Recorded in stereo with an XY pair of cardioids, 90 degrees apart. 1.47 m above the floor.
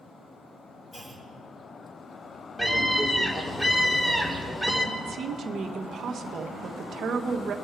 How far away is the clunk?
About 3 m.